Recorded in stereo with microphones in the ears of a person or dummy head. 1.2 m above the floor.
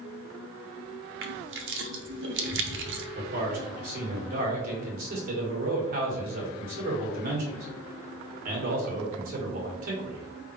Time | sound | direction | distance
1.2 | crushing | 60° right (ahead or behind) | 0.8 m
3.1 | a man speaking | 50° right (ahead or behind) | 1.6 m